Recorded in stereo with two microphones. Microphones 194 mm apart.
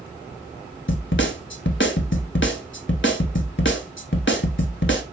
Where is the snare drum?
80° left, 0.8 m.